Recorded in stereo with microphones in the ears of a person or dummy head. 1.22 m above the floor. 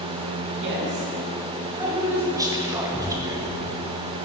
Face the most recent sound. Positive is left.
turn(degrees=-10)  # may be behind; listen again after turning